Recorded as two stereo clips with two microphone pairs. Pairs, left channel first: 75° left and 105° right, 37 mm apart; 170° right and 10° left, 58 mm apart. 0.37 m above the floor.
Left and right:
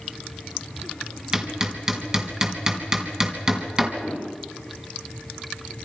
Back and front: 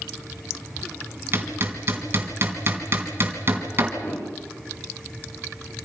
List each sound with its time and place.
1.3 s hammering: 40° right, 3.5 m
4.0 s a whoosh: 160° left, 9 m